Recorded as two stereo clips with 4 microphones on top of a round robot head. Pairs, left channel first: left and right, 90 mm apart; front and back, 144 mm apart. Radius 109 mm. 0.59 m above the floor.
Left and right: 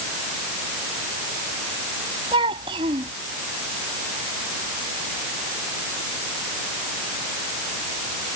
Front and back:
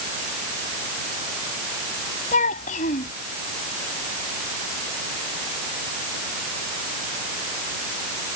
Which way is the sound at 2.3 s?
45° right.